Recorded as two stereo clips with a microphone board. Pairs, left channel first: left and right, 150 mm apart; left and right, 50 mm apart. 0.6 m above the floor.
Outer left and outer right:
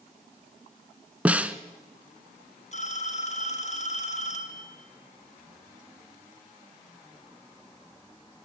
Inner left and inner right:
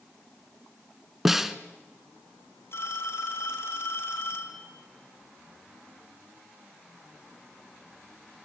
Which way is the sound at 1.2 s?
10° right (ahead or behind).